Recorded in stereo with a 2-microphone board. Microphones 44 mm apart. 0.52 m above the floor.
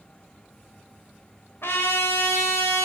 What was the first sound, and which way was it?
A trumpet, 65° left (ahead or behind).